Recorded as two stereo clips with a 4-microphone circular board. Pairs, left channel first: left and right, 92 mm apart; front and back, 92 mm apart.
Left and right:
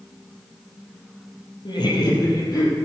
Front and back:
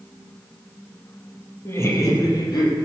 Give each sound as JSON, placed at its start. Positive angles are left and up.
{"t": 1.6, "sound": "laughter", "azimuth_deg": 60, "distance_m": 3.5}